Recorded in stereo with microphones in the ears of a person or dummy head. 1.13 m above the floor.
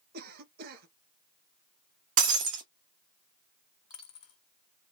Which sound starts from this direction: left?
A dropped coin, at 3.9 s.